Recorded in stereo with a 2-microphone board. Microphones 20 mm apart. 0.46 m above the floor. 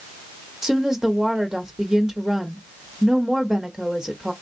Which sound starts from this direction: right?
A woman speaking, at 0.6 s.